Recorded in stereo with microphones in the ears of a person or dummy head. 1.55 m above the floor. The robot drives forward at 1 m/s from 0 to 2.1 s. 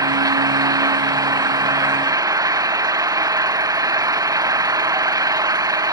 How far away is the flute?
I don't hear a flute.